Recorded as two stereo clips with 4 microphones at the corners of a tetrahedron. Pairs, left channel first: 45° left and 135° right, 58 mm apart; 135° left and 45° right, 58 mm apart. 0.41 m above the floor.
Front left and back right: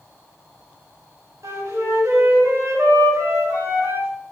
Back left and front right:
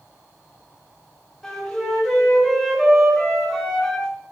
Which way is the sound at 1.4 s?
145° right.